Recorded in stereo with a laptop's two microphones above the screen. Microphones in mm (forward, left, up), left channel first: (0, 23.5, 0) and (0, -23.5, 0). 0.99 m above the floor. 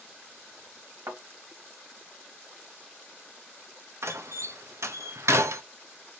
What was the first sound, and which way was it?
A thud, 60° right (ahead or behind).